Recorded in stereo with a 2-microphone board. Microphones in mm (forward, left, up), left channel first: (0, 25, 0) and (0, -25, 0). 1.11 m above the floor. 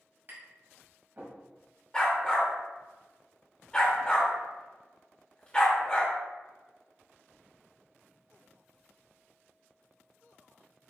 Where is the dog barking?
15° left (ahead or behind), 1.0 m.